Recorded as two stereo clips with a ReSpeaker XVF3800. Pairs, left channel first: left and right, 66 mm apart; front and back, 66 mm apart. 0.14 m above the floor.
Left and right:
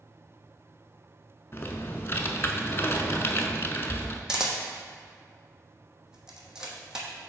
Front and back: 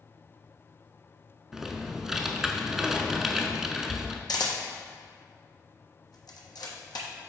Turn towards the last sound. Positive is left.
turn(degrees=-10)